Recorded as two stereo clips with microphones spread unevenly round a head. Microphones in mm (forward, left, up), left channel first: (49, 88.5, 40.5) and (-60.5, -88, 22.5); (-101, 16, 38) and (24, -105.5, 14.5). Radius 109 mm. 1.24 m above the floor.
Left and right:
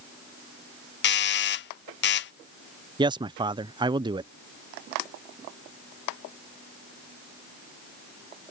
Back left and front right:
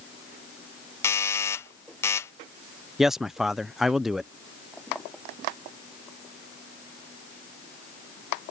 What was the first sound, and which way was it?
A doorbell, 55° left.